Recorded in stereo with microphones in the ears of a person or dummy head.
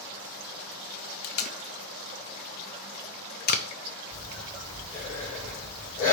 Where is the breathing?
20° left (ahead or behind), 3.5 m.